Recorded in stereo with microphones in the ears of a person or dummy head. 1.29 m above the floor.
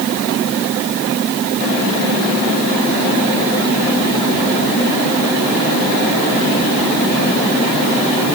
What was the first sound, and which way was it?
Only background noise.